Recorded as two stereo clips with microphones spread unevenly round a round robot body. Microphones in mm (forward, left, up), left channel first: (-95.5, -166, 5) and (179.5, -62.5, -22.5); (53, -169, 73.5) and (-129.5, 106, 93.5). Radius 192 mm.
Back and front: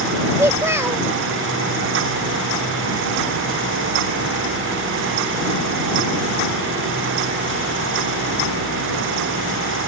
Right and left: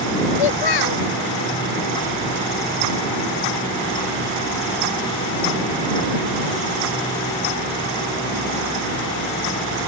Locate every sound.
0.4 s a child speaking: 60° right